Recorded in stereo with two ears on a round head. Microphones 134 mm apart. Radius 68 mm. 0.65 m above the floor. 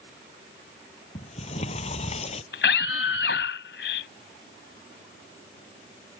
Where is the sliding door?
45° left (ahead or behind).